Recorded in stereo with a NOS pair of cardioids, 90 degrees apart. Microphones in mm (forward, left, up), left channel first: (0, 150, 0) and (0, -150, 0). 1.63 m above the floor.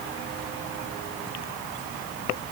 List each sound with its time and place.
Only background noise.